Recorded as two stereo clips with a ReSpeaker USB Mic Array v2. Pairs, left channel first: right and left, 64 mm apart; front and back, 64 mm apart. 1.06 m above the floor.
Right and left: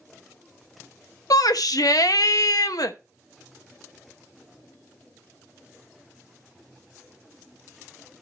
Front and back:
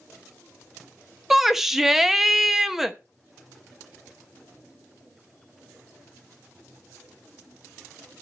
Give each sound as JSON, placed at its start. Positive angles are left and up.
{"t": 1.3, "sound": "a shout", "azimuth_deg": -95, "distance_m": 0.9}